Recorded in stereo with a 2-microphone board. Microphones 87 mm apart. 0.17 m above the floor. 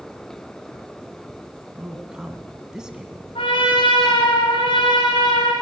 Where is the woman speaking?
10° right (ahead or behind), 1.6 m.